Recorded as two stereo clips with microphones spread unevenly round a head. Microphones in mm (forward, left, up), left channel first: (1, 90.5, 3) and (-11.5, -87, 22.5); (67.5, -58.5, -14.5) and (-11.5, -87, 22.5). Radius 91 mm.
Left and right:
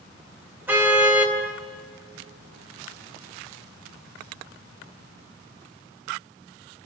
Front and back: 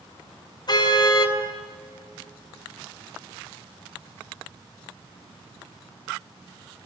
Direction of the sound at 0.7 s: 15° right.